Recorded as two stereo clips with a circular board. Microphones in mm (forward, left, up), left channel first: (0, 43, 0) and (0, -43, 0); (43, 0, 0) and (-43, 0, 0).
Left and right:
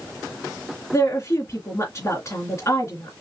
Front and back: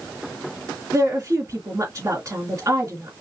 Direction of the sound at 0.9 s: 140° left.